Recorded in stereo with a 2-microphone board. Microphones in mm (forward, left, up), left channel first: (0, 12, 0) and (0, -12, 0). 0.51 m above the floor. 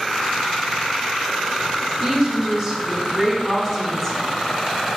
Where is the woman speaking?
25° right (ahead or behind), 2.0 m; by 4.3 s 15° left (ahead or behind), 1.2 m.